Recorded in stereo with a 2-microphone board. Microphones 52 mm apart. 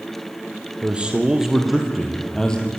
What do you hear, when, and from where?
0.8 s a man speaking: 20° right (ahead or behind), 3 m; by 2.7 s 20° left (ahead or behind), 3 m